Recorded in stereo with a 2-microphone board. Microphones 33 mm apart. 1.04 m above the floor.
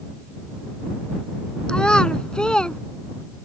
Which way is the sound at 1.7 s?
25° left (ahead or behind).